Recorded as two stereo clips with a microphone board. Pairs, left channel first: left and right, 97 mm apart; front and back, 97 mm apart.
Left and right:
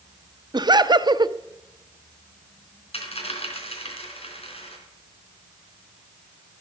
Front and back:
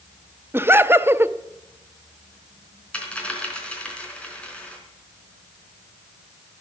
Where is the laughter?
120° right, 0.7 m.